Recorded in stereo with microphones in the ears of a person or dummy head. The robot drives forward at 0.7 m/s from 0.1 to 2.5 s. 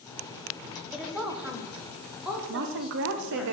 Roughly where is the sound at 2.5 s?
Right.